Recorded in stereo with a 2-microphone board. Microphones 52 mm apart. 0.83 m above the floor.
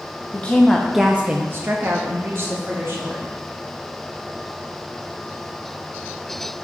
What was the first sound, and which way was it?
A woman speaking, 25° left (ahead or behind).